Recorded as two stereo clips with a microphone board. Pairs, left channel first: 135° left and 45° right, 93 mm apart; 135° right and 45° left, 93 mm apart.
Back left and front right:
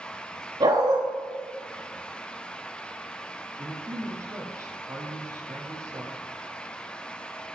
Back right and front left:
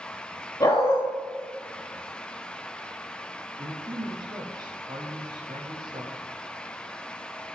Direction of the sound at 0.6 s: 75° right.